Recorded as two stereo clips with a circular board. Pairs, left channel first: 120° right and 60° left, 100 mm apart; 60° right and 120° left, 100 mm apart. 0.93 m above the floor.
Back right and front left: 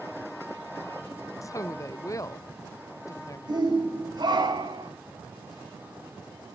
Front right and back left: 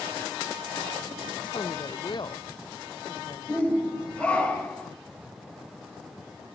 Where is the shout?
20° left, 4.5 m.